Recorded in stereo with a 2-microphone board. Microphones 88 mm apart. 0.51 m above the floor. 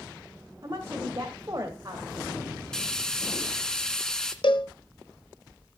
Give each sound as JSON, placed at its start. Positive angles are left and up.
{"t": 0.6, "sound": "a woman speaking", "side_deg": -40, "distance_m": 1.9}
{"t": 2.7, "sound": "frying", "side_deg": 5, "distance_m": 1.9}
{"t": 4.4, "sound": "a cowbell", "side_deg": 70, "distance_m": 0.9}